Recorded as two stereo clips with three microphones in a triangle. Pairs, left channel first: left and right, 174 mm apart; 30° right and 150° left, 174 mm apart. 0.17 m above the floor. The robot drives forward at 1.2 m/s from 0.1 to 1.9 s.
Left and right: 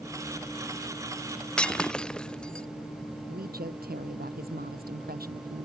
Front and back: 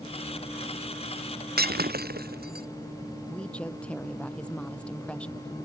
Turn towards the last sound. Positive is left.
turn(degrees=-115)